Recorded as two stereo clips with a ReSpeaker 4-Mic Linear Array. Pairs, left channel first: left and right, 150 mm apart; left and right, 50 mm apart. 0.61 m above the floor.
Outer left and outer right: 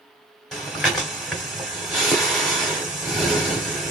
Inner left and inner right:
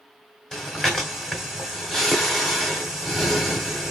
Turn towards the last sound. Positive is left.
turn(degrees=0)  # may be behind; listen again after turning